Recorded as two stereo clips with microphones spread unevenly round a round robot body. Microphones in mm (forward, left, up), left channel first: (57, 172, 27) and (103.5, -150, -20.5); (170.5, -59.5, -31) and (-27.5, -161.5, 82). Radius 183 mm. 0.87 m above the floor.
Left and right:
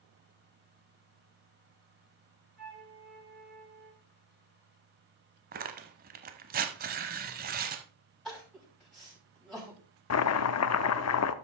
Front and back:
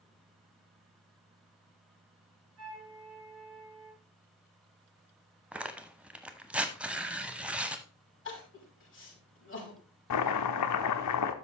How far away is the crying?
About 6 m.